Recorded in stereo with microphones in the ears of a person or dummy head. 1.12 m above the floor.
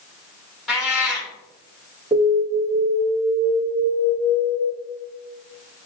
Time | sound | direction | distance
0.7 | a cat meowing | centre (ahead or behind) | 1.0 m
2.1 | an alarm | 5° right (ahead or behind) | 1.2 m